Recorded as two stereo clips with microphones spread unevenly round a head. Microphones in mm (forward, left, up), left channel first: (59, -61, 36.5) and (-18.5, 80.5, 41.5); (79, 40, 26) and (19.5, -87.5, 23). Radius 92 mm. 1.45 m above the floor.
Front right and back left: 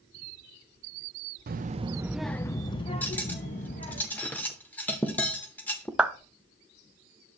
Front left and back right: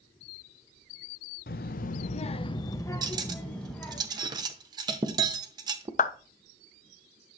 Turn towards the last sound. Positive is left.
turn(degrees=35)